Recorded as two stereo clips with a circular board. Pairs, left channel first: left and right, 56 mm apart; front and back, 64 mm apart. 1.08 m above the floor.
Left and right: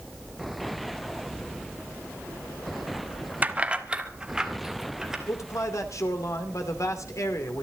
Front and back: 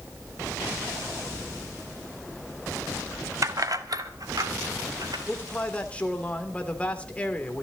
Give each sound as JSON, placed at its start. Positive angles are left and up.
{"t": 3.4, "sound": "keys jangling", "azimuth_deg": -150, "distance_m": 1.0}
{"t": 5.3, "sound": "a man speaking", "azimuth_deg": 70, "distance_m": 2.5}